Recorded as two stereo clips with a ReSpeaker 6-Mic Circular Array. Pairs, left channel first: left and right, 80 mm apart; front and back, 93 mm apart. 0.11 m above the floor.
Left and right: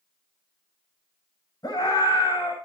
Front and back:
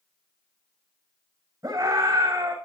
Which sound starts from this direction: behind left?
A scream, at 1.6 s.